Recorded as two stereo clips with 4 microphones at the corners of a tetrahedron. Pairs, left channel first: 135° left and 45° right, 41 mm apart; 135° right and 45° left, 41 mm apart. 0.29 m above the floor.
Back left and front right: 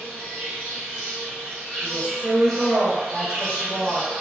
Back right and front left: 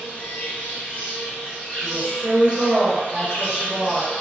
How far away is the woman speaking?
About 1.2 m.